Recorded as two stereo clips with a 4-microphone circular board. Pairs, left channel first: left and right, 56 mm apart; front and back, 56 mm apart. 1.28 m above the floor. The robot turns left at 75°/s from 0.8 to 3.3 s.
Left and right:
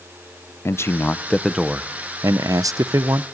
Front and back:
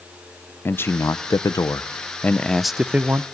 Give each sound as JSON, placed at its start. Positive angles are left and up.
{"t": 0.7, "sound": "a man speaking", "azimuth_deg": 50, "distance_m": 0.5}